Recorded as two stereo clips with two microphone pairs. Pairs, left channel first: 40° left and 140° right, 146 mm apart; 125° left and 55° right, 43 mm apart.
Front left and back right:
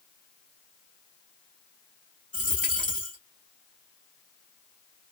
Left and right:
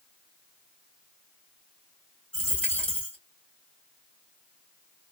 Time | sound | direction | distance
2.3 | a dropped coin | 60° left | 2 m